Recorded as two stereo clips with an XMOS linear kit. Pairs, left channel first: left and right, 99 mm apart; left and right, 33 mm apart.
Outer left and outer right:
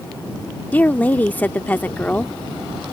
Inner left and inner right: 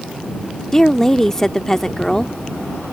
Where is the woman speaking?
15° left (ahead or behind).